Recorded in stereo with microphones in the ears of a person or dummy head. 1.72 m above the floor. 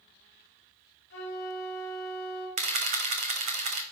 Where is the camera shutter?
40° right (ahead or behind), 1.1 m.